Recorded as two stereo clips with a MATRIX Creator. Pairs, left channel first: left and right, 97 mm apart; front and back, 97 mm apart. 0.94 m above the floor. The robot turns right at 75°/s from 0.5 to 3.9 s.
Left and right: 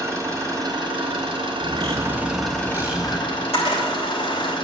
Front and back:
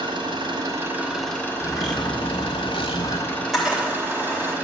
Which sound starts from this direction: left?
A camera shutter, at 3.3 s.